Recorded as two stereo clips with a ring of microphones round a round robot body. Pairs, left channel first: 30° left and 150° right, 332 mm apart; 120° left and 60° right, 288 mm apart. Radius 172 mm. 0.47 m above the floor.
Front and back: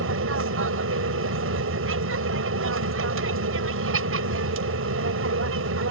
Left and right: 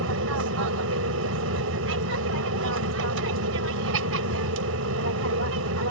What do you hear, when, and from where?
0.0 s an aircraft: 105° right